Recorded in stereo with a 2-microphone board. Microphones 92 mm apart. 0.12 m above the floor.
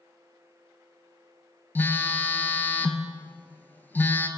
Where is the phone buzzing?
20° left (ahead or behind), 0.8 m.